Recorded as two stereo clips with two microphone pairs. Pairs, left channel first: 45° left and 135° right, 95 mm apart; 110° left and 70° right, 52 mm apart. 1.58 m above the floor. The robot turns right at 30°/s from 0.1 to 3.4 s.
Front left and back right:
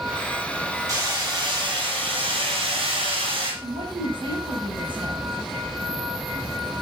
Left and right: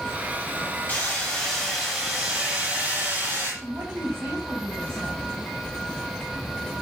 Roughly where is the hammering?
Behind.